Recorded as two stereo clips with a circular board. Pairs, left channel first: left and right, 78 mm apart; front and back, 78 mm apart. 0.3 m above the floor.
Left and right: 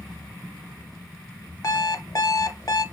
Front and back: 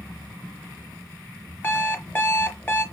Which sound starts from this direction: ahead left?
An alarm clock, at 1.6 s.